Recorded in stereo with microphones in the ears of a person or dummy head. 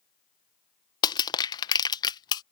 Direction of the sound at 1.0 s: 20° left (ahead or behind).